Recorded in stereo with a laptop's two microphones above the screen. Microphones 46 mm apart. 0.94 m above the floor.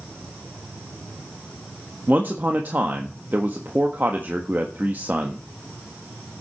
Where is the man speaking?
45° right (ahead or behind), 1.3 m.